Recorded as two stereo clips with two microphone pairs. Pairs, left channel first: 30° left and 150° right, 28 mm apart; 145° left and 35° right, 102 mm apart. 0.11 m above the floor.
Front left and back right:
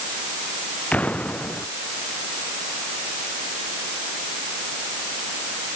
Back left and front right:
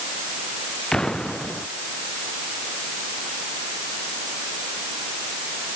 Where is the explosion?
65° left.